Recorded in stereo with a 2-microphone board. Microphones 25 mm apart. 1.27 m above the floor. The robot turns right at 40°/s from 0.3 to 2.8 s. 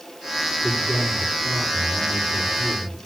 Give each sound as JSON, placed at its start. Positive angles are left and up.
{"t": 0.6, "sound": "a man speaking", "azimuth_deg": 15, "distance_m": 10.0}